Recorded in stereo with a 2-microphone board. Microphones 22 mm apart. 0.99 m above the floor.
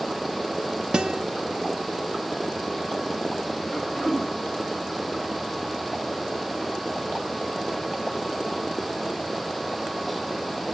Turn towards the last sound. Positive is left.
turn(degrees=10)  # may be behind; listen again after turning